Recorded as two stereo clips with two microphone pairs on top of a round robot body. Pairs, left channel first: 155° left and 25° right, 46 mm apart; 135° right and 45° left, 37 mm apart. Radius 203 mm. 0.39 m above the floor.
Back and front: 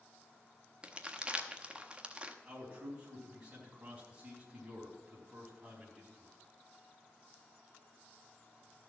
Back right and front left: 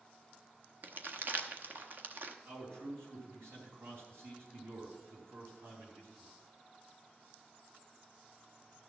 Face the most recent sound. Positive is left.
turn(degrees=45)